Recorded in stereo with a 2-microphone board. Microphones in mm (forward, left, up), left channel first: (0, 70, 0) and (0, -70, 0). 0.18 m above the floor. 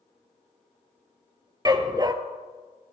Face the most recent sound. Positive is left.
turn(degrees=-30)  # may be behind; listen again after turning